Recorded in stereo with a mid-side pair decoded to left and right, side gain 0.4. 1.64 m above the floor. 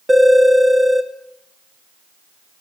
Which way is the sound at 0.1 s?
20° right.